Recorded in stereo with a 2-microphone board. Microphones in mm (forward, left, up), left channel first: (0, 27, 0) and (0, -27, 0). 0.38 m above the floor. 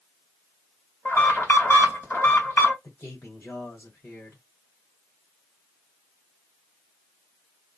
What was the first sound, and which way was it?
An alarm, 45° left (ahead or behind).